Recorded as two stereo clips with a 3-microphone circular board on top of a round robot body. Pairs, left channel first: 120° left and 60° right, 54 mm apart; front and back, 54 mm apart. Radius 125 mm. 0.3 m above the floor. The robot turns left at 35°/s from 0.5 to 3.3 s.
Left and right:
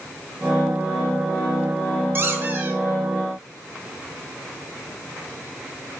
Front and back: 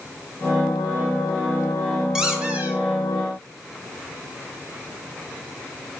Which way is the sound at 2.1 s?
105° right.